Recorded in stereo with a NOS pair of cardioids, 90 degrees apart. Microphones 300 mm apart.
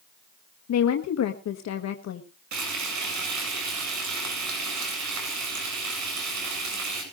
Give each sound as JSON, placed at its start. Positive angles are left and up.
{"t": 0.7, "sound": "a woman speaking", "azimuth_deg": 60, "distance_m": 1.5}
{"t": 2.5, "sound": "frying", "azimuth_deg": -65, "distance_m": 8.0}